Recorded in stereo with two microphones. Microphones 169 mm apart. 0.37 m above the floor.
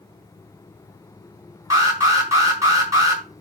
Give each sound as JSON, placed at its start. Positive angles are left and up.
{"t": 1.7, "sound": "an alarm", "side_deg": -20, "distance_m": 5.5}